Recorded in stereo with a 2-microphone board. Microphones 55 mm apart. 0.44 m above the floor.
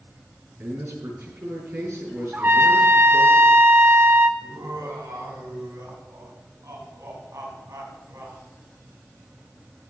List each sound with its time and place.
0.6 s a man speaking: 55° right (ahead or behind), 6.5 m
2.3 s a trumpet: 35° right (ahead or behind), 0.8 m
4.4 s laughter: 75° right (ahead or behind), 4 m